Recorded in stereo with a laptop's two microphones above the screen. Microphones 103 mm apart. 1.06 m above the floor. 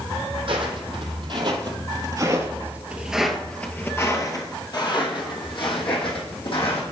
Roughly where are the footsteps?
Right.